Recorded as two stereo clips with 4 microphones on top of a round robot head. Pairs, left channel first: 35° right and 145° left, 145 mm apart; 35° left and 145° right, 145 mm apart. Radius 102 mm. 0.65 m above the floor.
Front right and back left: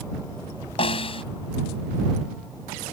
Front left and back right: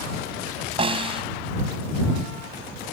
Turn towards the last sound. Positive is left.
turn(degrees=-90)